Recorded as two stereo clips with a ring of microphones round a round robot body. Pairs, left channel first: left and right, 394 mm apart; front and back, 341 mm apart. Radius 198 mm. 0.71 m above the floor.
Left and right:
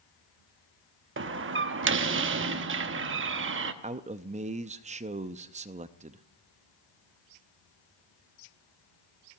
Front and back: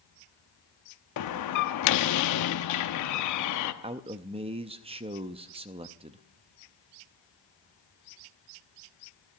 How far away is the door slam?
About 0.9 m.